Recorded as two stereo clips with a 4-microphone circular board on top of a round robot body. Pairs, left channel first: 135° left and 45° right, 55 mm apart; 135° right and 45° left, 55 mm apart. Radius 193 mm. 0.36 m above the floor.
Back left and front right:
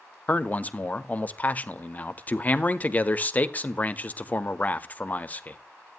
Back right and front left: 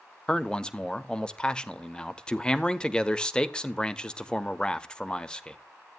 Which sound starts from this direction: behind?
A man speaking, at 0.3 s.